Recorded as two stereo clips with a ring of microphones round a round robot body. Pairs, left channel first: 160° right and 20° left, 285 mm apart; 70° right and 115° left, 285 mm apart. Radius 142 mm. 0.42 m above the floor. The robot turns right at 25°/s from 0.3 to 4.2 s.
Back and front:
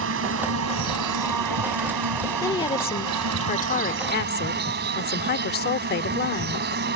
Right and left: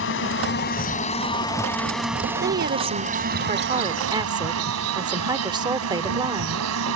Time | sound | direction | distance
0.0 | an insect | 20° right | ?
2.4 | a woman speaking | 135° left | ?